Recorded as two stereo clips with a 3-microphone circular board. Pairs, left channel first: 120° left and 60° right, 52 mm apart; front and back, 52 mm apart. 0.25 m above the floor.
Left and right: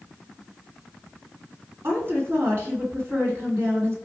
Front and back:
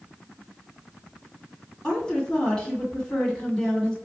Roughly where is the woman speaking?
Right.